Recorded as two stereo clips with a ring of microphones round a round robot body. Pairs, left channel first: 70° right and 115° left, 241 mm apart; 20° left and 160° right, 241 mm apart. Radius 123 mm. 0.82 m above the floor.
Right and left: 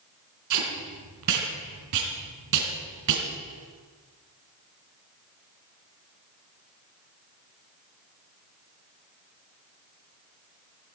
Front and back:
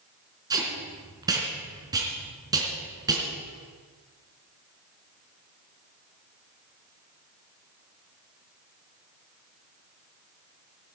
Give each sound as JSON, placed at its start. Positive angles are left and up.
{"t": 0.5, "sound": "tape being pulled", "azimuth_deg": 125, "distance_m": 3.0}